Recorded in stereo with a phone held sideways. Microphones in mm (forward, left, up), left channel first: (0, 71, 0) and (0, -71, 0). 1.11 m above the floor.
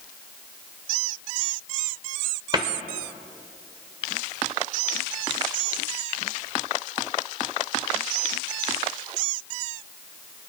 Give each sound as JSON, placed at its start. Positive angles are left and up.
{"t": 2.5, "sound": "a cupboard door", "side_deg": -30, "distance_m": 1.0}